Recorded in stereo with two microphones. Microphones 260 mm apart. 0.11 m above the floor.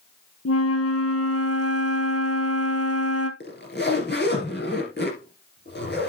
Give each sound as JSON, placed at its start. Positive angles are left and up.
{"t": 0.5, "sound": "a flute", "side_deg": 65, "distance_m": 1.2}
{"t": 3.4, "sound": "a zipper", "side_deg": 40, "distance_m": 2.5}